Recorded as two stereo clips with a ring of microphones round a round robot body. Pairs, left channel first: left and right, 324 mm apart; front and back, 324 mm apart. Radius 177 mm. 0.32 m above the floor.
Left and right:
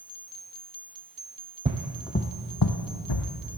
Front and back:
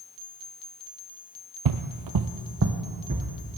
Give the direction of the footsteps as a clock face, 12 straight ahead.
5 o'clock.